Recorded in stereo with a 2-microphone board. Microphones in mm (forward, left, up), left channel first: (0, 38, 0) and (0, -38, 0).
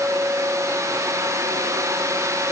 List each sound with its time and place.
Only background noise.